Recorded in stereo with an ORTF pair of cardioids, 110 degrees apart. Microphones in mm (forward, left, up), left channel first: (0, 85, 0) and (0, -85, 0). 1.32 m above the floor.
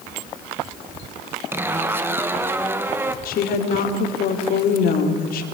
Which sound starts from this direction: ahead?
A zipper, at 1.5 s.